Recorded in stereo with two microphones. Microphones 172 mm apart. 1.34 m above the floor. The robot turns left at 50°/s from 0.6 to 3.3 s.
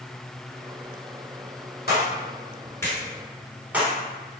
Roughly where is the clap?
Left.